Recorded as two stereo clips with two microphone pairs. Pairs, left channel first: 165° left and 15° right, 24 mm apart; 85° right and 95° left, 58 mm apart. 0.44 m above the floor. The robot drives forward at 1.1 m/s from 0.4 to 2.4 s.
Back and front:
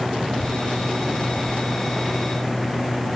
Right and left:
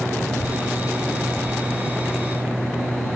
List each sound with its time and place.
0.3 s a child speaking: 75° right; by 3.2 s 95° right